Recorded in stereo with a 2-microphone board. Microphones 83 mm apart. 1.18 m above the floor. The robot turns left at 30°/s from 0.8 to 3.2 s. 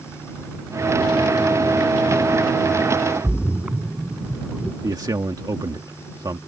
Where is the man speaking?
50° right (ahead or behind).